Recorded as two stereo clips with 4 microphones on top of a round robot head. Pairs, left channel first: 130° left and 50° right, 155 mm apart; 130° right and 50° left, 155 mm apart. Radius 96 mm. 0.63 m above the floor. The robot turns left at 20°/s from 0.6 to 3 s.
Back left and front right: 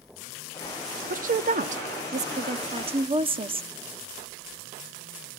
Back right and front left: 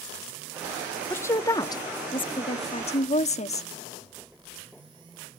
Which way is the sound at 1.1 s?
60° right.